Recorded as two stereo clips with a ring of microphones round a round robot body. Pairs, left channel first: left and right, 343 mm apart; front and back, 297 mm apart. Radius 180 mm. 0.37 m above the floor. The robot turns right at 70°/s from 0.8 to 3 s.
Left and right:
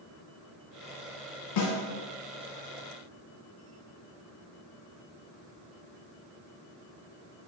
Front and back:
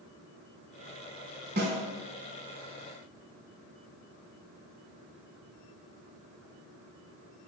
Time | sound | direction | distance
1.6 | a snare drum | 120° left | 0.9 m